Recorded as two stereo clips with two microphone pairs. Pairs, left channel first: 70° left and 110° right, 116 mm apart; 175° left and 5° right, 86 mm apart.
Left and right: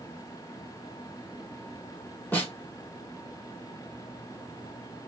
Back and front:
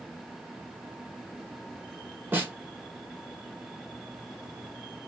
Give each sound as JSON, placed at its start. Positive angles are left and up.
{"t": 2.3, "sound": "a snare drum", "azimuth_deg": 25, "distance_m": 1.4}